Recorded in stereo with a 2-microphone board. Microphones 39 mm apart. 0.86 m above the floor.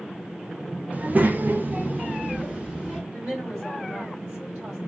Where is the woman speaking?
35° right (ahead or behind), 2.5 m.